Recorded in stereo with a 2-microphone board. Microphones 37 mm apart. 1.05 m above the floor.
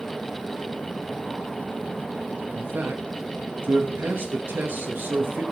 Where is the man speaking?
70° right (ahead or behind), 1.3 m.